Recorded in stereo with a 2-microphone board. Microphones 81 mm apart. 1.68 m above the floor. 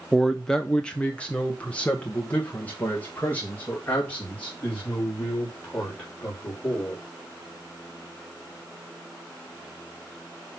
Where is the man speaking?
Centre (ahead or behind), 0.6 m; by 7.0 s 25° left (ahead or behind), 4.5 m.